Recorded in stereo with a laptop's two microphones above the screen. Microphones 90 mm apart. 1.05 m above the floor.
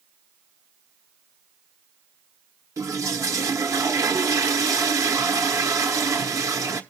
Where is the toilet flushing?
35° right (ahead or behind), 1.1 m.